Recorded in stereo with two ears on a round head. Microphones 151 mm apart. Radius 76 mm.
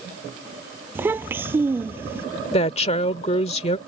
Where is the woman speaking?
40° left (ahead or behind).